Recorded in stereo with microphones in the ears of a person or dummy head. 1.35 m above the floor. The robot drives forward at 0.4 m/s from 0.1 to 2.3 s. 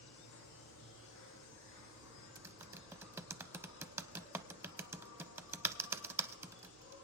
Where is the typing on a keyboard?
15° right (ahead or behind), 0.6 m.